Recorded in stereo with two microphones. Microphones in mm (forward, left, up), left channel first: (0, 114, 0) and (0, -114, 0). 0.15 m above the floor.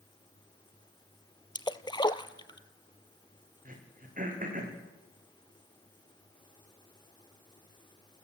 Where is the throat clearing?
35° right (ahead or behind), 6 m.